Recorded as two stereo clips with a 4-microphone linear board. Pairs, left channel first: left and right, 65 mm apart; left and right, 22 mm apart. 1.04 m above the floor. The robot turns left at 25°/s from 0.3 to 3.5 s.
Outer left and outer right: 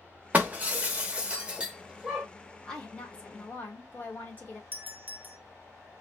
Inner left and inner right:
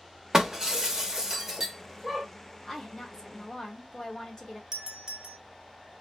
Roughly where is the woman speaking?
Centre.